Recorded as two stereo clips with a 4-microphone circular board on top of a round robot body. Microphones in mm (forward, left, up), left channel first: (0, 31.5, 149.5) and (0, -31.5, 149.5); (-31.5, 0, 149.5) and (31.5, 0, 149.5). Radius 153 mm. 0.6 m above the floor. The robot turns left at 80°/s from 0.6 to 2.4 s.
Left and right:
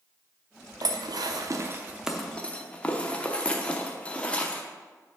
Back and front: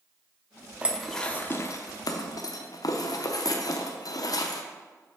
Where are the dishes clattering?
70° right, 0.8 m; by 4.6 s 160° left, 0.8 m.